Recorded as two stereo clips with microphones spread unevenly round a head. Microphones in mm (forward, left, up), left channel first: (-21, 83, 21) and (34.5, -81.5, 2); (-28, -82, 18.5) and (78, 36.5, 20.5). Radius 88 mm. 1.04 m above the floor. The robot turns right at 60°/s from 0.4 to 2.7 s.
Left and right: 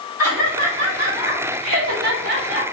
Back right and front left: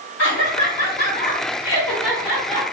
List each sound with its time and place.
0.2 s laughter: 145° right, 3 m; by 2.6 s 10° right, 3 m